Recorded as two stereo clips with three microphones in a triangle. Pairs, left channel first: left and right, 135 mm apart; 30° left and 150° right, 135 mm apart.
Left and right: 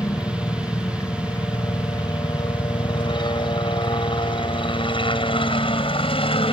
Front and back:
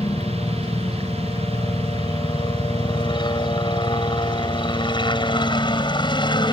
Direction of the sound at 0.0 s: 45° left.